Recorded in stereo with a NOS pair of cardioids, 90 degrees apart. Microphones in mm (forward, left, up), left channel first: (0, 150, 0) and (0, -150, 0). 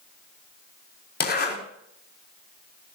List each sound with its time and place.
1.2 s a zipper: 35° left, 5.5 m